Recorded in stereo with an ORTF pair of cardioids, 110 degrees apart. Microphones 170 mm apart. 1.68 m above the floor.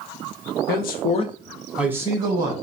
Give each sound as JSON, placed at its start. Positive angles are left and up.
{"t": 0.7, "sound": "a man speaking", "azimuth_deg": 70, "distance_m": 1.0}